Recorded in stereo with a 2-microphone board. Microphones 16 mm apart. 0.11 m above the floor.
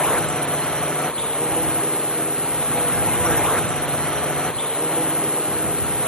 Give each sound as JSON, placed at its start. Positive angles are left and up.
{"t": 0.0, "sound": "a drone", "side_deg": 80}